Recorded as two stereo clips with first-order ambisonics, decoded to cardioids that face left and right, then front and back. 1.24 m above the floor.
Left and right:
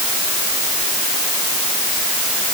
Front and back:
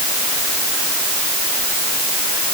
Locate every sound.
Only background noise.